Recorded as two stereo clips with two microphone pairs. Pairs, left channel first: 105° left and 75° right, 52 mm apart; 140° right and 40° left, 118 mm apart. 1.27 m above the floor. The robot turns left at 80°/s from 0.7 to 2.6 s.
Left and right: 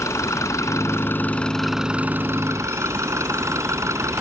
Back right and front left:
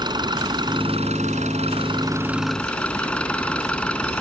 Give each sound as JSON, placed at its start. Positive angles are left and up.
{"t": 0.0, "sound": "an engine running", "azimuth_deg": 90}